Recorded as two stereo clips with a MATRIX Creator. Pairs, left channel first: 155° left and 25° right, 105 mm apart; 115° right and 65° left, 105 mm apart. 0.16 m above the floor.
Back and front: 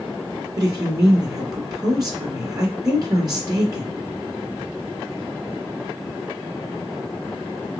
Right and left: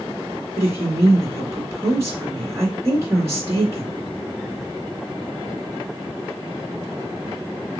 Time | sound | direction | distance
0.6 | a woman speaking | 15° left | 1.9 m